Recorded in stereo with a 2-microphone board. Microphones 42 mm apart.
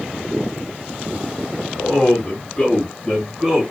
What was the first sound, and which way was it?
A man speaking, 35° left (ahead or behind).